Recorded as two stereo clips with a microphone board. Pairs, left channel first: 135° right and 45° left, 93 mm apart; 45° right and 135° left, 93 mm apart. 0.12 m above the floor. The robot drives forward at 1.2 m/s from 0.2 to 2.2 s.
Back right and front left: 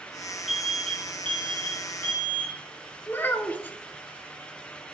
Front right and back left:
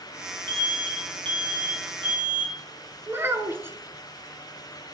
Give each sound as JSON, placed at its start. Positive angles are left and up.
{"t": 0.5, "sound": "an alarm", "azimuth_deg": 135, "distance_m": 2.0}
{"t": 3.1, "sound": "a child speaking", "azimuth_deg": 175, "distance_m": 0.8}